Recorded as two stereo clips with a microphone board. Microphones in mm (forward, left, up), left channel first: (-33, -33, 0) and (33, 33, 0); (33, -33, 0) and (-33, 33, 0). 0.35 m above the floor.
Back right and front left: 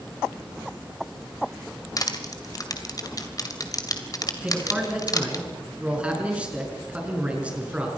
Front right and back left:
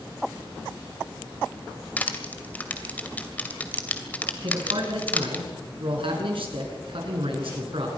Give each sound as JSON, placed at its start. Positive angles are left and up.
{"t": 2.0, "sound": "crushing", "azimuth_deg": -110, "distance_m": 2.0}
{"t": 4.4, "sound": "a man speaking", "azimuth_deg": 120, "distance_m": 5.5}